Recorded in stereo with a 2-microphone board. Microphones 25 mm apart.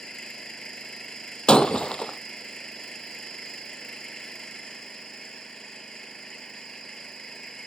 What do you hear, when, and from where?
0.0 s an engine running: 30° left (ahead or behind)
1.5 s breaking glass: 40° left (ahead or behind)